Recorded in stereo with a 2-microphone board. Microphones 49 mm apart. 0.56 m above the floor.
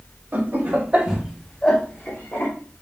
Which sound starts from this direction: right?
Laughter, at 0.3 s.